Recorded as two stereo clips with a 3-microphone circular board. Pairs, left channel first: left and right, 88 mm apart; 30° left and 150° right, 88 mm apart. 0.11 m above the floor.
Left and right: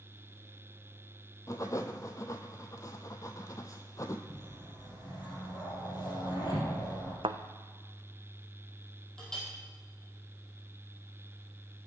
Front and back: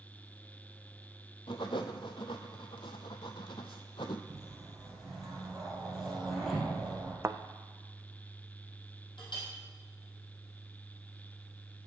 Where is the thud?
90° right, 0.6 m.